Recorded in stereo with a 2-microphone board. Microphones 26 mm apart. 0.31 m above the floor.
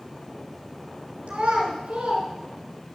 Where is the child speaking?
70° right (ahead or behind), 2.5 m.